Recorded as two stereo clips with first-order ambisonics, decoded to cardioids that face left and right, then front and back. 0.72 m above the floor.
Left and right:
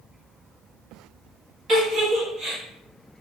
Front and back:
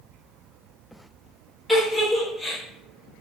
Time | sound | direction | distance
1.7 | a giggle | 95° right | 0.9 m